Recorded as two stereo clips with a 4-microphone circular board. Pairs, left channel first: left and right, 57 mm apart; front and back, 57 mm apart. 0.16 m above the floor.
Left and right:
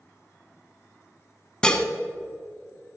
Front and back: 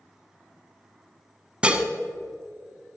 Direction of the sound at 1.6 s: 140° left.